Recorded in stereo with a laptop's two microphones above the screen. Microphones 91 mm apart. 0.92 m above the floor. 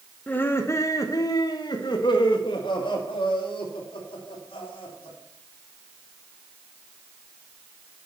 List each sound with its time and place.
0.3 s laughter: 15° left (ahead or behind), 0.9 m; by 5.2 s 75° left (ahead or behind), 3 m